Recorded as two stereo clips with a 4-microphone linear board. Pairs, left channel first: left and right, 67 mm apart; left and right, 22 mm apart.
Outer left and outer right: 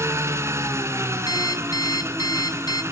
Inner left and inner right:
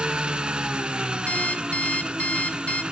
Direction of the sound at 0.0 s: 45° right (ahead or behind).